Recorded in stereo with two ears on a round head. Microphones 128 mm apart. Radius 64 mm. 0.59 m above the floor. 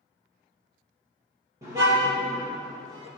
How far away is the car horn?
About 8.5 m.